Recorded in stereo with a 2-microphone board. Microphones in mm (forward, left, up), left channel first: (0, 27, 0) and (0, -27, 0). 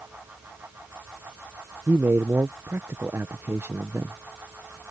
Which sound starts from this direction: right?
A man speaking, at 1.9 s.